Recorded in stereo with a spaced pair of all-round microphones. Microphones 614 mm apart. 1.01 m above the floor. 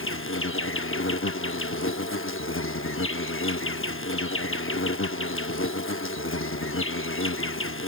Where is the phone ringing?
I don't hear a phone ringing.